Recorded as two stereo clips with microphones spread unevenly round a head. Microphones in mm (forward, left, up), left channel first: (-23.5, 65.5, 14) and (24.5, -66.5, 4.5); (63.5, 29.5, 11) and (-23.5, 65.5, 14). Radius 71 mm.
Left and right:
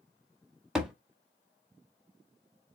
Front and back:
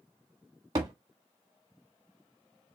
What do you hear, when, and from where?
0.8 s a thud: 160° right, 1.1 m